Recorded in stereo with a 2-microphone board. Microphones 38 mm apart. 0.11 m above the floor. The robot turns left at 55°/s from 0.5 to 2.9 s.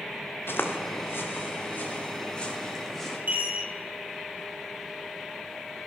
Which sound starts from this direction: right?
A chime, at 3.3 s.